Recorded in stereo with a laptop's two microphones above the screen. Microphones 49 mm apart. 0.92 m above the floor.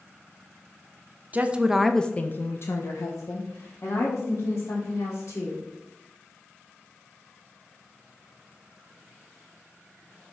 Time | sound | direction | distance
1.3 | a woman speaking | 30° right (ahead or behind) | 0.6 m